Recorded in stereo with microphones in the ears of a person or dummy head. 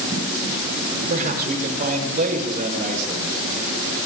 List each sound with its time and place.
1.1 s a man speaking: 40° right (ahead or behind), 6.5 m